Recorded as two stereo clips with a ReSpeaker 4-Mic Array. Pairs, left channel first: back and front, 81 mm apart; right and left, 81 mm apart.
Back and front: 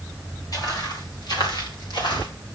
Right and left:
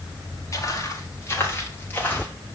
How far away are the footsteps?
About 4.5 m.